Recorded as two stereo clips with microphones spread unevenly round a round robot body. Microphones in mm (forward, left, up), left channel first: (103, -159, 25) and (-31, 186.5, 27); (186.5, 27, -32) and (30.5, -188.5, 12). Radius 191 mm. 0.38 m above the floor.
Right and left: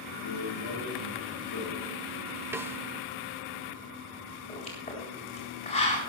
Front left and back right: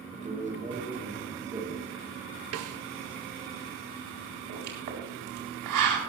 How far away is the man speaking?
About 5 m.